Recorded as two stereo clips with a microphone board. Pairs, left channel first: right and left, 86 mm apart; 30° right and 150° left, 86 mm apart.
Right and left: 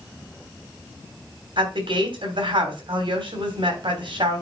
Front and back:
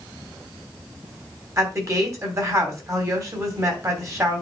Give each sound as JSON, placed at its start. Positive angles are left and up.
{"t": 1.6, "sound": "a woman speaking", "azimuth_deg": 95, "distance_m": 3.0}